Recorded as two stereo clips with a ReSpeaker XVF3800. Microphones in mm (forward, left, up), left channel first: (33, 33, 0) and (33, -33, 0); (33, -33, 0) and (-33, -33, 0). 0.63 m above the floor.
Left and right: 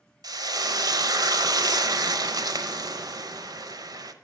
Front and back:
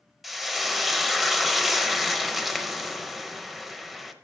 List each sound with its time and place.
0.2 s frying: 90° right, 0.8 m